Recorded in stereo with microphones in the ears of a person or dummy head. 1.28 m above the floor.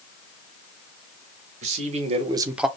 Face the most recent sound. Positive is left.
turn(degrees=-5)  # may be behind; listen again after turning